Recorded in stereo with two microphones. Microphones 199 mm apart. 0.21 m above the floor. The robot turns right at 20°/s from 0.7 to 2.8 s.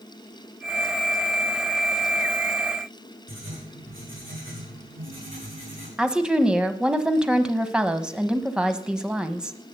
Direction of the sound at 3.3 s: 85° right.